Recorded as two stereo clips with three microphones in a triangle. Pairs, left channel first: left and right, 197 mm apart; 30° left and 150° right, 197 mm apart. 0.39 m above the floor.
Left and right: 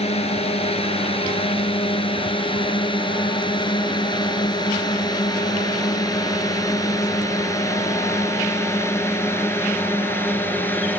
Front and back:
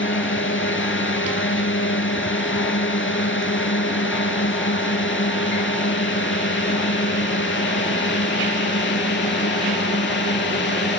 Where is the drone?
30° left; by 11.0 s 10° left.